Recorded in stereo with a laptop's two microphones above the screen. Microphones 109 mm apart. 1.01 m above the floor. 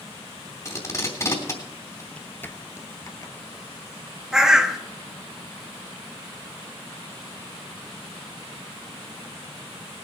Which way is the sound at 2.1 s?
10° left (ahead or behind).